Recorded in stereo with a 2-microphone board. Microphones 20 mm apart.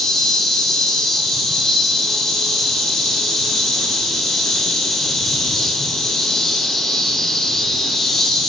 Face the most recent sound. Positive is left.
turn(degrees=20)  # may be behind; listen again after turning